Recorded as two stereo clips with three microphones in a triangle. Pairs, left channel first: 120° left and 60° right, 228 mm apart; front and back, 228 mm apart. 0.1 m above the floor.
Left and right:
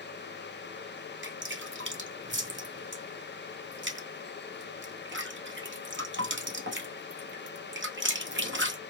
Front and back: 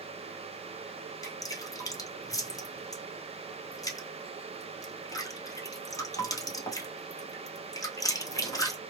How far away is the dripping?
About 1.2 m.